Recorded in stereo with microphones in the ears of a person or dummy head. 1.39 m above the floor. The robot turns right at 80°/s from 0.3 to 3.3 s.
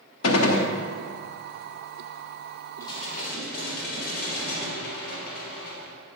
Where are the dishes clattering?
20° left, 2.5 m; by 5.9 s 60° left, 2.5 m.